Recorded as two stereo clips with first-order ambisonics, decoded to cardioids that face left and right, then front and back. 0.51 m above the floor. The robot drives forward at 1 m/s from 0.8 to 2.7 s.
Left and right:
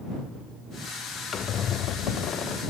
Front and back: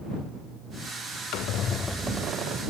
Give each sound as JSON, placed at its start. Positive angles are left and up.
{"t": 1.3, "sound": "a squeak", "azimuth_deg": 25, "distance_m": 0.8}